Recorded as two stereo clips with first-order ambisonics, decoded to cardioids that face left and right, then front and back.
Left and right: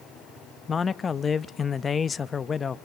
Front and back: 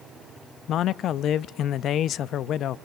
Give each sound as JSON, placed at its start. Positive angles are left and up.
{"t": 0.7, "sound": "a man speaking", "azimuth_deg": 30, "distance_m": 0.5}